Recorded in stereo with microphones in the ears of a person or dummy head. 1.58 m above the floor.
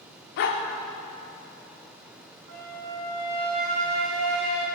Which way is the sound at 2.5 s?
50° right (ahead or behind).